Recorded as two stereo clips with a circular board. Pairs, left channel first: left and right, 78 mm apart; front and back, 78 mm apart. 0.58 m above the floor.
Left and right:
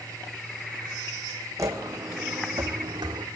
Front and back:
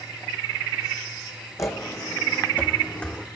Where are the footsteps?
45° right, 1.6 m; by 3.2 s 75° right, 1.8 m.